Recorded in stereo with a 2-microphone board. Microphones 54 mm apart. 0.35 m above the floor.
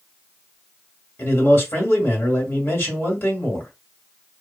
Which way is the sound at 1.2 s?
50° left (ahead or behind).